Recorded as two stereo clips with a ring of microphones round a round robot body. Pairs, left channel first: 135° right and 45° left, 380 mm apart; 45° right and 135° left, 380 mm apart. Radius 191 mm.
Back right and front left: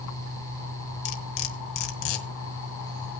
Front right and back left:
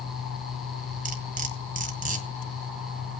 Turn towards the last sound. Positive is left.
turn(degrees=-155)